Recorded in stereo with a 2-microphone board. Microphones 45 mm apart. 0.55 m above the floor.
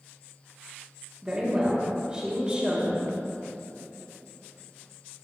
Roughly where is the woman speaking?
Right.